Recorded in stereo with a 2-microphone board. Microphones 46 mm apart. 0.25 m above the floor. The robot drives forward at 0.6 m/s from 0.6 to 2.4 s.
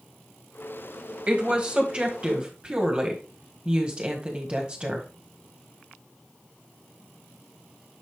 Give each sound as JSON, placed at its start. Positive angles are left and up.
{"t": 1.3, "sound": "a woman speaking", "side_deg": -30, "distance_m": 1.5}